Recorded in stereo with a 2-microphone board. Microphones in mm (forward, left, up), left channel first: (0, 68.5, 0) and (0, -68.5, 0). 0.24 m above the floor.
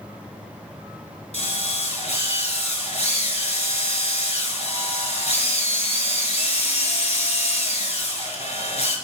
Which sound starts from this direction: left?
A drill, at 1.3 s.